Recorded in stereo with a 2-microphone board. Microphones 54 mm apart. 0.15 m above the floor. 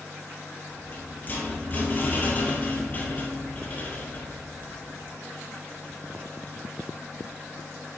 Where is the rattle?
35° left (ahead or behind), 1.5 m.